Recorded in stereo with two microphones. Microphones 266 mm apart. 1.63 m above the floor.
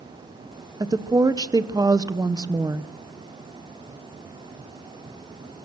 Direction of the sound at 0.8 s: 15° right (ahead or behind).